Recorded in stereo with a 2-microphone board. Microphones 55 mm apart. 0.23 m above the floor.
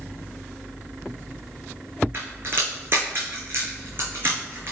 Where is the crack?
45° right (ahead or behind), 3.5 m.